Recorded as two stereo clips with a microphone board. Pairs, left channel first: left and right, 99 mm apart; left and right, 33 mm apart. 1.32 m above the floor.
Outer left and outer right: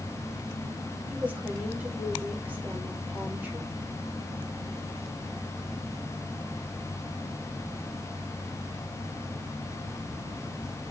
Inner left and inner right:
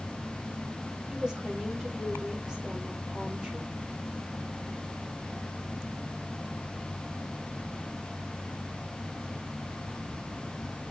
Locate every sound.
1.1 s a woman speaking: 15° right (ahead or behind), 4 m